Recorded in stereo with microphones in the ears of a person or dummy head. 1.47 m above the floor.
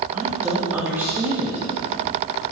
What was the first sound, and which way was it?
A woman speaking, 15° right (ahead or behind).